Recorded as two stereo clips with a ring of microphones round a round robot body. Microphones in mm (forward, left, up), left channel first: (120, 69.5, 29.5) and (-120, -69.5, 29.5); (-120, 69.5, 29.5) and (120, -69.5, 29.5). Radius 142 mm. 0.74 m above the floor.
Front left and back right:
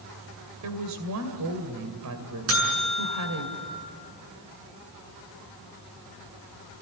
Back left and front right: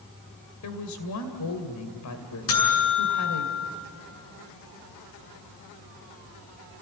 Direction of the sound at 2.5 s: 170° left.